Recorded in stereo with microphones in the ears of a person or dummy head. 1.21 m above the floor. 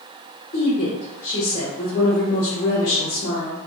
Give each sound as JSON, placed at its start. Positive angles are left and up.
{"t": 0.5, "sound": "a woman speaking", "side_deg": 40, "distance_m": 0.8}